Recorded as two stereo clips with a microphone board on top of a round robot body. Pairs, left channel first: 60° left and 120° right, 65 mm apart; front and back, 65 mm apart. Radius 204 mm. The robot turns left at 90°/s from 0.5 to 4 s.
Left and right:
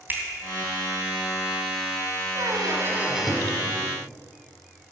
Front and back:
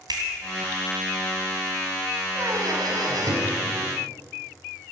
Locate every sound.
0.1 s a finger snap: straight behind, 3 m
2.4 s a squeak: 125° right, 2.5 m; by 3.6 s 120° left, 2.5 m